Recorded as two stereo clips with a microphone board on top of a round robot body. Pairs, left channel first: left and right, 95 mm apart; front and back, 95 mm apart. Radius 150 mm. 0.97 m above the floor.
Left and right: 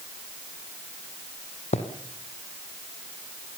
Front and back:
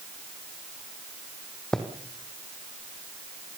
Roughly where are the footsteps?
Left.